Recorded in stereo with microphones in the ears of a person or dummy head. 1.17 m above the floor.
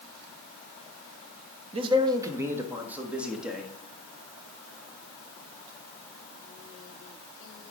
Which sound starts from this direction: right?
A man speaking, at 1.7 s.